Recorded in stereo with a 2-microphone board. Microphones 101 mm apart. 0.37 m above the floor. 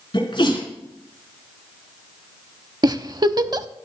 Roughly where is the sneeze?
Left.